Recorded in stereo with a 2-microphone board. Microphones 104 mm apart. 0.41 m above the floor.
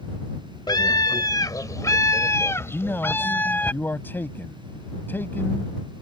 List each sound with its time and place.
0.7 s a scream: 45° left (ahead or behind); by 3.7 s 15° left (ahead or behind)
2.7 s a man speaking: 20° left (ahead or behind)